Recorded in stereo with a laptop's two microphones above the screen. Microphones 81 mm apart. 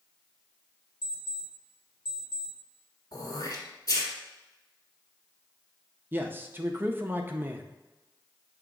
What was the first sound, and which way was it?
An alarm clock, 70° left (ahead or behind).